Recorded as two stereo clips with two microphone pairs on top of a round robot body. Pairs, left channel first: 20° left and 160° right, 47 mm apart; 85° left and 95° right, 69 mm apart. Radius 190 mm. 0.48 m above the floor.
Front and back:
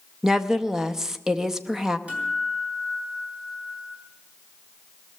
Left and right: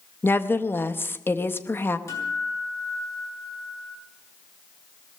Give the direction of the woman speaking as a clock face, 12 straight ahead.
8 o'clock.